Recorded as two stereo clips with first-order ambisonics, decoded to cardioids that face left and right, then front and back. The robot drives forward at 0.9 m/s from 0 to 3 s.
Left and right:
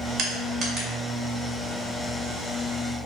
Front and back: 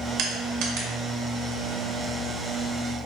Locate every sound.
0.2 s crushing: 140° right, 0.7 m; by 0.9 s 160° right, 1.2 m